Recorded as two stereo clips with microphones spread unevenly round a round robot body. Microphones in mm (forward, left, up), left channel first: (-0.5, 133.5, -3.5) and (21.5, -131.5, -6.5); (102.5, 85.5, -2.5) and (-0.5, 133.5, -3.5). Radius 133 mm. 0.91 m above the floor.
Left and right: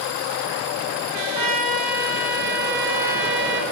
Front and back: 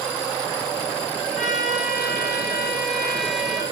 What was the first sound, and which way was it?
A trumpet, 70° right.